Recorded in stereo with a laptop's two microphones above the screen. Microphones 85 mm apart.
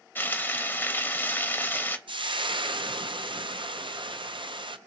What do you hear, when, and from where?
0.1 s frying: 25° left (ahead or behind), 1.0 m
2.1 s frying: 70° right (ahead or behind), 0.5 m